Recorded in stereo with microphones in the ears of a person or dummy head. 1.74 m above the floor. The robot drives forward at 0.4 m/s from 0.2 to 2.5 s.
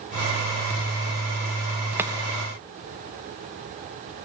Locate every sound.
2.0 s chopping: 10° right (ahead or behind), 0.6 m